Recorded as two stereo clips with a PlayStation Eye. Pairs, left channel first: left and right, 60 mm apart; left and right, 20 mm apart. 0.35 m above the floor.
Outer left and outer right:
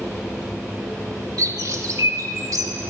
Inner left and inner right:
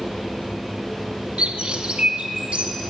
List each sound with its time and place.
1.4 s a bird: 70° right (ahead or behind), 0.6 m